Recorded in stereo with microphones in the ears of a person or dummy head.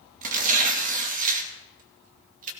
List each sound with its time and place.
0.2 s tearing paper: 45° right (ahead or behind), 2.5 m